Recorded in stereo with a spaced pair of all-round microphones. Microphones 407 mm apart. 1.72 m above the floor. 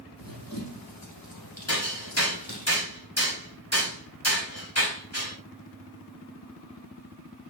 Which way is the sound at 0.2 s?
55° left (ahead or behind).